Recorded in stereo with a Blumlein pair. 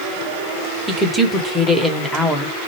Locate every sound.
0.9 s a woman speaking: straight ahead, 1.0 m